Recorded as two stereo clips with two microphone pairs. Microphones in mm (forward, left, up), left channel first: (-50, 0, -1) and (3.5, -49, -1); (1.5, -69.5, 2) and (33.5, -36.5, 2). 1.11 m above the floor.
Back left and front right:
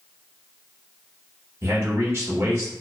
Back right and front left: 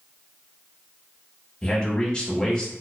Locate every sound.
1.6 s a man speaking: 70° right, 0.9 m